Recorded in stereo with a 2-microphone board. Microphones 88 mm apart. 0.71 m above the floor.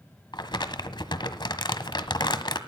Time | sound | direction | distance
0.3 | crumpling | 60° left (ahead or behind) | 1.4 m